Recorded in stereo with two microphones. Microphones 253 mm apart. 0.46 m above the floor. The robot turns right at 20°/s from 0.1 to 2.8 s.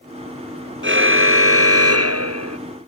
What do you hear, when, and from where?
0.8 s a car horn: 130° right; by 2.6 s 95° right